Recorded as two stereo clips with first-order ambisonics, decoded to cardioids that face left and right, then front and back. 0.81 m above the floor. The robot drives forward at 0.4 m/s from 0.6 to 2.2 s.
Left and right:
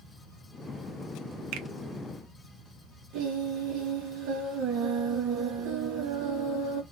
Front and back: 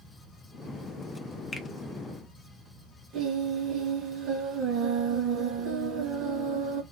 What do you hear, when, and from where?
1.5 s a finger snap: 75° right, 0.6 m; by 1.7 s 85° right, 0.6 m
3.1 s singing: 125° right, 1.8 m